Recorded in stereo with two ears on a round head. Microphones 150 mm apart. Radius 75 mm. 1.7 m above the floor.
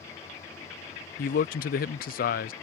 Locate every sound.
1.2 s a man speaking: 55° left (ahead or behind)